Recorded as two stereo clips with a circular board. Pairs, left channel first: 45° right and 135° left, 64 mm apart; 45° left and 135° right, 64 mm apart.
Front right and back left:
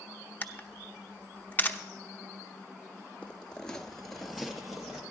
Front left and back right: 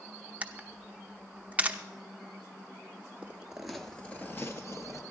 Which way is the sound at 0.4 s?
85° right.